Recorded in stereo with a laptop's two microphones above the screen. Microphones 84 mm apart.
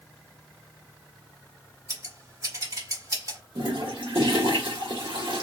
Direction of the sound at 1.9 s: 45° right (ahead or behind).